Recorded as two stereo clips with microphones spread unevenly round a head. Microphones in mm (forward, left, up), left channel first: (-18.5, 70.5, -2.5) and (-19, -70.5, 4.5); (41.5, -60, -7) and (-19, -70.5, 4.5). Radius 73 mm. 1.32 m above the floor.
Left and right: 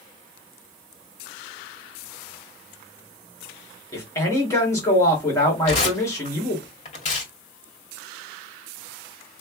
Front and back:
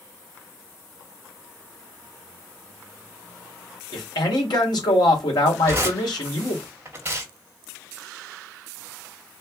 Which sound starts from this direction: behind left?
Tearing paper, at 5.7 s.